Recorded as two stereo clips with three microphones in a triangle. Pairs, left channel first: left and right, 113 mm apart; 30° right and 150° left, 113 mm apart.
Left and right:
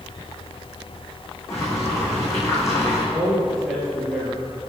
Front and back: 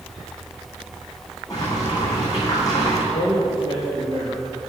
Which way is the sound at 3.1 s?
Straight ahead.